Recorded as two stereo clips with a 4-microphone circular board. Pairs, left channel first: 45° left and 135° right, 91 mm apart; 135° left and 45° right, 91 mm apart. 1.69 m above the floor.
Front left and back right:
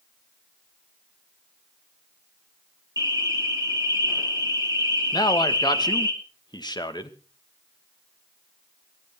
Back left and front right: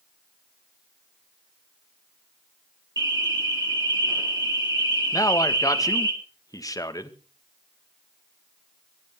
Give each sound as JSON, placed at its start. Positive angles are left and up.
{"t": 3.0, "sound": "an alarm", "azimuth_deg": -80, "distance_m": 4.0}
{"t": 5.1, "sound": "a man speaking", "azimuth_deg": 85, "distance_m": 2.0}